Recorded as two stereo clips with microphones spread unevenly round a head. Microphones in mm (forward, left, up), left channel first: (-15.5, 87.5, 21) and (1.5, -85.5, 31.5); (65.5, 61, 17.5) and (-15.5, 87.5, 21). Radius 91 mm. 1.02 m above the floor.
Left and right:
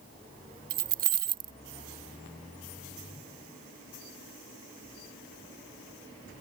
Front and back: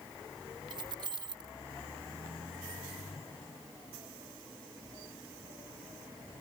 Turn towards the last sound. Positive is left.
turn(degrees=-130)